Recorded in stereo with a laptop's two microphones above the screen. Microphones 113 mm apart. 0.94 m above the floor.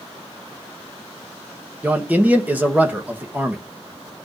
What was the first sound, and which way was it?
A man speaking, 15° right (ahead or behind).